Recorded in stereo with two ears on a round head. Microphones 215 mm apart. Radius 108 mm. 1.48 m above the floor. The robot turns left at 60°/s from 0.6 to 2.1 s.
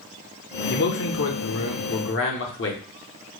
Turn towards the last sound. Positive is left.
turn(degrees=55)